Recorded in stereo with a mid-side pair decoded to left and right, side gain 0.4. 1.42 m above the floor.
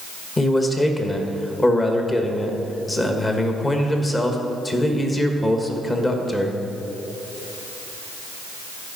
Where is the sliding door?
I don't hear a sliding door.